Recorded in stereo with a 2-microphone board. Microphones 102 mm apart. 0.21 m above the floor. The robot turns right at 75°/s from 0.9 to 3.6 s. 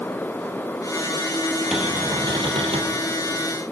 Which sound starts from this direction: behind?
A cupboard door, at 1.7 s.